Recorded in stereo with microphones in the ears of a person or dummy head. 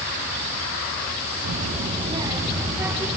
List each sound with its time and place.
1.4 s a child speaking: 45° right (ahead or behind), 1.3 m; by 3.2 s 5° right (ahead or behind), 2.5 m